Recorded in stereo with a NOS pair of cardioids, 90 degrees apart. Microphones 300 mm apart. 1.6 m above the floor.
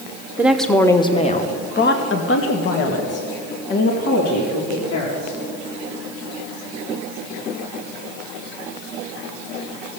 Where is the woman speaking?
5° right, 1.0 m; by 5.4 s 70° left, 3 m.